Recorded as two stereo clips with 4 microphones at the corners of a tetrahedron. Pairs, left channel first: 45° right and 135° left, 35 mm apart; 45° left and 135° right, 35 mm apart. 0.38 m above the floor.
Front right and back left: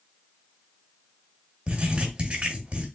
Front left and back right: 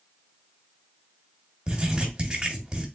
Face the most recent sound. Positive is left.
turn(degrees=165)